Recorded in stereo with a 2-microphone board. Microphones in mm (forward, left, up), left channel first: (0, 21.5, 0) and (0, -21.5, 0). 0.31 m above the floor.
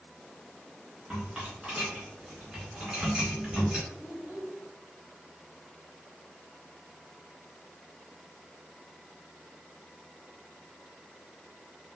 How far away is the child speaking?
About 1.5 m.